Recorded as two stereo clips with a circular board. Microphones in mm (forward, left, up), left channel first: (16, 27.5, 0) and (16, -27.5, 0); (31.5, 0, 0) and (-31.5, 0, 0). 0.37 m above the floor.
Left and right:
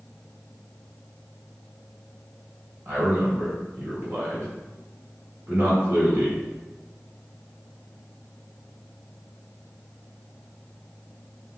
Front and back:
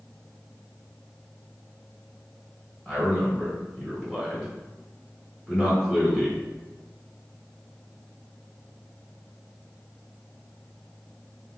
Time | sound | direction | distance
2.9 | a man speaking | 80° right | 1.5 m